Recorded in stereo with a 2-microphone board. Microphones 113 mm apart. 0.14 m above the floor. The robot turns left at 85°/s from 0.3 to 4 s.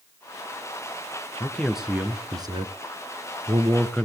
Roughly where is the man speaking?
Ahead left.